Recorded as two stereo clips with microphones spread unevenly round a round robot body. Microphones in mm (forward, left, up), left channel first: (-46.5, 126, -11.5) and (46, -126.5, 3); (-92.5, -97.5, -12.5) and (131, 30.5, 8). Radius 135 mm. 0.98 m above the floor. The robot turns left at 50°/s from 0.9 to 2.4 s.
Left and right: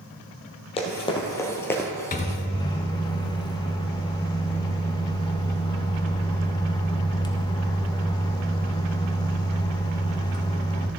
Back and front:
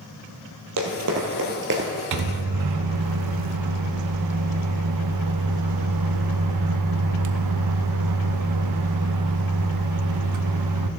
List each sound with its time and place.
0.8 s running footsteps: 40° left, 1.9 m; by 1.9 s 30° left, 1.2 m
2.1 s a microwave: 50° left, 0.6 m; by 10.9 s 35° left, 0.6 m